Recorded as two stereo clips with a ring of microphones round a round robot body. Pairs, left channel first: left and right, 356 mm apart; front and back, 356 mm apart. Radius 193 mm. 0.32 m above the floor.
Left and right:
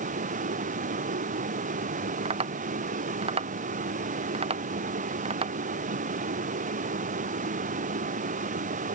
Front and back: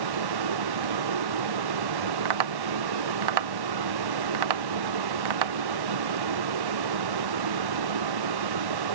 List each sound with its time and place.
0.0 s a vehicle: 160° right
2.2 s tapping: 165° right